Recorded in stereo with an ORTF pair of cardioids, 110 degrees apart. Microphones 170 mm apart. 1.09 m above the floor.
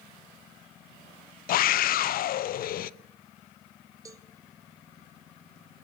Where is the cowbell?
20° right, 1.6 m.